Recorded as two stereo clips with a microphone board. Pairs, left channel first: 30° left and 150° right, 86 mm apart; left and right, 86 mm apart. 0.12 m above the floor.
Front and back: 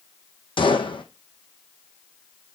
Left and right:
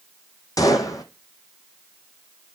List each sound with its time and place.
0.6 s a gunshot: 45° left, 1.0 m